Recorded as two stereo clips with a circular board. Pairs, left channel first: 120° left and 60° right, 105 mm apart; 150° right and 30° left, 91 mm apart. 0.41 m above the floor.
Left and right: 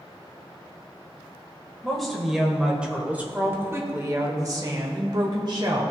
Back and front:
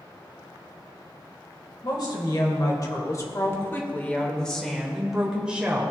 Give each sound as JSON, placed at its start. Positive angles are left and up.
{"t": 1.8, "sound": "a woman speaking", "azimuth_deg": -155, "distance_m": 2.0}